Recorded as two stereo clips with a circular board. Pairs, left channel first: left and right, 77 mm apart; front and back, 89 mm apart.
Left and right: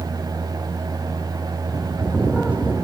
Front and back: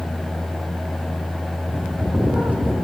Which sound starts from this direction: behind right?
A bird, at 1.7 s.